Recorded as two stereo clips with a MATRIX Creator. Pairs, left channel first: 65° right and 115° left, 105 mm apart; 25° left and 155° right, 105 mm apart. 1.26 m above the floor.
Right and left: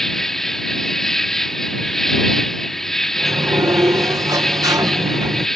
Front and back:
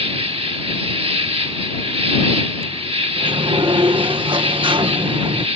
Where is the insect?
155° right.